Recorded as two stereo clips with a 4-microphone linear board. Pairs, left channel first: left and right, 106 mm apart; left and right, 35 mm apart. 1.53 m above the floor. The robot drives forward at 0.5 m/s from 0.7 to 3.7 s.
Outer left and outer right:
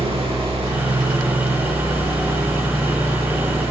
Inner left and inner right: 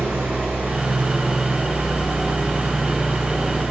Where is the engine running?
70° right (ahead or behind), 8 m; by 3.7 s 80° right, 7.5 m.